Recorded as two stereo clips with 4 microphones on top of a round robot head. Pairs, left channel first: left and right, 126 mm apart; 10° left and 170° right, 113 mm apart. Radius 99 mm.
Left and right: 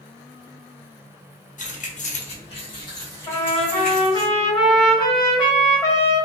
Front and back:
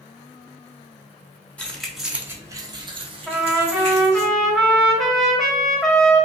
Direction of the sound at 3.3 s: 95° left.